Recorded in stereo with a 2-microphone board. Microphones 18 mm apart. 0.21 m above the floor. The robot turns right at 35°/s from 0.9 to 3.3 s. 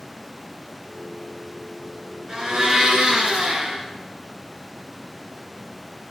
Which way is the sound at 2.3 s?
140° right.